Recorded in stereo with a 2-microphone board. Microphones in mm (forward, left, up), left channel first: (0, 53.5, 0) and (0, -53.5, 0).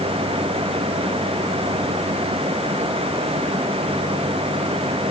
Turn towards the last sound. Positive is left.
No sound to turn to.